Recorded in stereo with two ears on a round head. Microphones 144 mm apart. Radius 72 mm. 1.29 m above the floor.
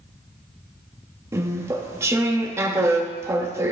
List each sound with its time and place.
1.3 s chewing: 20° right (ahead or behind), 0.8 m